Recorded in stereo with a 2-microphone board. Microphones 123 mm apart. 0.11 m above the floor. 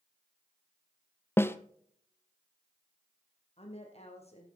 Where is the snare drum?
20° left (ahead or behind), 0.7 m.